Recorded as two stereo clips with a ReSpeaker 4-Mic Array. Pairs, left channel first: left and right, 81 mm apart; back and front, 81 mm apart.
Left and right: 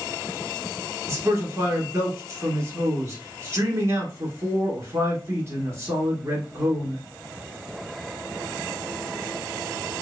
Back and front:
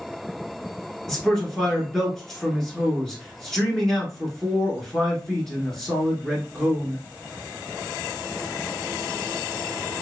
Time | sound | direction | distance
1.1 | a man speaking | 100° right | 1.4 m